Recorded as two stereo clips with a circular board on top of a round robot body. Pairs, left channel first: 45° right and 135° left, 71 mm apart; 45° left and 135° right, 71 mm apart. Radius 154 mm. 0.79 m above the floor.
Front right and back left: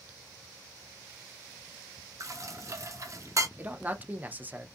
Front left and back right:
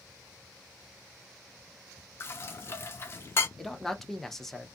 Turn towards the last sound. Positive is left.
turn(degrees=125)